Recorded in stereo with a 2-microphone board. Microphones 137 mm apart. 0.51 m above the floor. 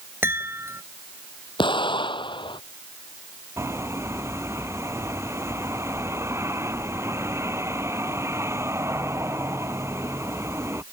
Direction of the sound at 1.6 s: 35° left (ahead or behind).